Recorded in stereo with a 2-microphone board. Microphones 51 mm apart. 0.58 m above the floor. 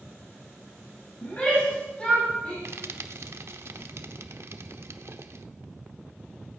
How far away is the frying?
About 0.8 m.